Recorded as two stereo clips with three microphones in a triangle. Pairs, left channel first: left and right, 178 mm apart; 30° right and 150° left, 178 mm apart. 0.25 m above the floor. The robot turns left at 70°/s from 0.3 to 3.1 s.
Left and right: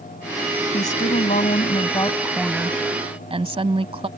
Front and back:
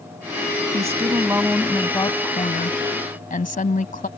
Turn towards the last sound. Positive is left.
turn(degrees=-45)